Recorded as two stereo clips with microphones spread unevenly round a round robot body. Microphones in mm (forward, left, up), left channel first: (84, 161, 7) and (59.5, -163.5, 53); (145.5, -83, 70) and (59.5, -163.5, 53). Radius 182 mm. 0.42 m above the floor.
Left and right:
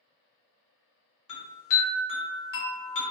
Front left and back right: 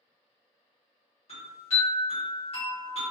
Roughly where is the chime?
Left.